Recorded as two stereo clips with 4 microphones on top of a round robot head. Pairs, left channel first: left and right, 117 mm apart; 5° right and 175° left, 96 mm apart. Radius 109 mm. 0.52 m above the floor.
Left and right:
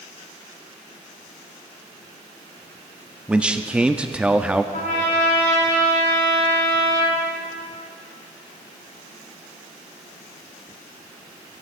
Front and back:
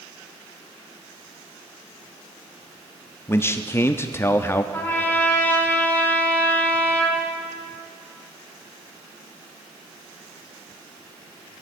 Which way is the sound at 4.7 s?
65° left.